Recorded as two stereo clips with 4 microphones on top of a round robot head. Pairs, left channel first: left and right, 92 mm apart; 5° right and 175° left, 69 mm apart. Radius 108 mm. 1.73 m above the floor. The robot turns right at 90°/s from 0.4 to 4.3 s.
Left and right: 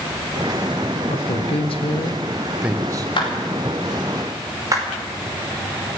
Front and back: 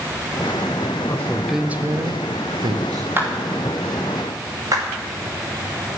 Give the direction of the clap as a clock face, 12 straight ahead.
8 o'clock.